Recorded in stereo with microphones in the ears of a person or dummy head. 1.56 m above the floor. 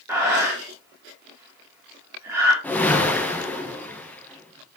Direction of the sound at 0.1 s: 15° right (ahead or behind).